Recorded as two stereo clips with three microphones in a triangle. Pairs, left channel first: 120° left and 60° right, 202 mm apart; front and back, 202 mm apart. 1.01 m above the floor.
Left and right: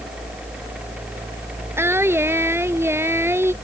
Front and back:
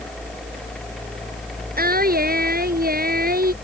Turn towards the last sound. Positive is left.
turn(degrees=-140)